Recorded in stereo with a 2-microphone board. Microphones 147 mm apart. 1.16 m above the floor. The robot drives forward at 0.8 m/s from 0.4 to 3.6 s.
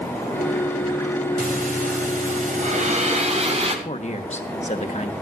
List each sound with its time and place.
1.4 s breathing: 70° right (ahead or behind), 1.9 m; by 3.8 s 45° right (ahead or behind), 2.5 m
3.9 s a man speaking: 50° left (ahead or behind), 1.4 m